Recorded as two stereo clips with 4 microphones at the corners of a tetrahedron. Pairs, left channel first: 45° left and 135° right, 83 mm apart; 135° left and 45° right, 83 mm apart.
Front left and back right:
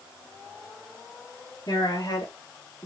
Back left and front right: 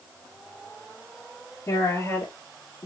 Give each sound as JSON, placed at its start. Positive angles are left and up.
{"t": 1.7, "sound": "a woman speaking", "azimuth_deg": 75, "distance_m": 4.0}